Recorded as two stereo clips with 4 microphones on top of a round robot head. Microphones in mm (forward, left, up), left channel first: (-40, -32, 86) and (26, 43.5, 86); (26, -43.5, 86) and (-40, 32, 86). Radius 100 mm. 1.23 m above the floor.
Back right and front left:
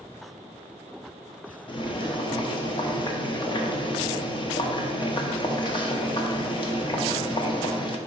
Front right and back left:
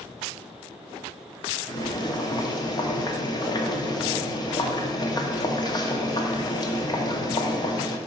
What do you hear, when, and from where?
1.7 s boiling: 95° right, 0.9 m